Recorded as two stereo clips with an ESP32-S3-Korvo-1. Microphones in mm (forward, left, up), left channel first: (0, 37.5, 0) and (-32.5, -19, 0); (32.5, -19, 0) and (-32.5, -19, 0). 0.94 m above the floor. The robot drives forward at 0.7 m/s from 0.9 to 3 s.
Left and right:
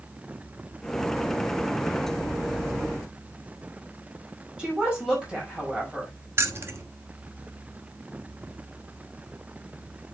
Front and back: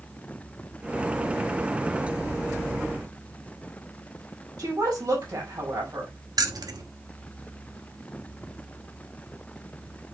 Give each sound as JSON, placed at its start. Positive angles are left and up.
{"t": 4.6, "sound": "a woman speaking", "azimuth_deg": 165, "distance_m": 5.5}
{"t": 6.4, "sound": "keys jangling", "azimuth_deg": -170, "distance_m": 1.1}